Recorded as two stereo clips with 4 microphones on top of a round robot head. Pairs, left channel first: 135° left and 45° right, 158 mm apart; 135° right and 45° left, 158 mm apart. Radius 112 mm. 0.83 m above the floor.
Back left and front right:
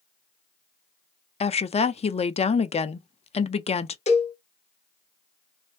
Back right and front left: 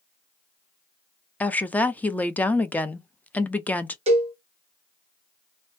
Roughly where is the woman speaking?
Behind left.